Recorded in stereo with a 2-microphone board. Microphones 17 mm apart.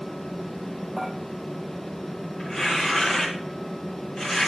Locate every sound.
1.0 s dishes clattering: 5° right (ahead or behind), 3 m
2.4 s tearing paper: 45° left (ahead or behind), 4 m